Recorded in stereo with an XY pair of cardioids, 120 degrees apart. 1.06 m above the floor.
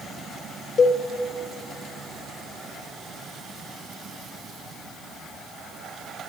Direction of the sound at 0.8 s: 40° left.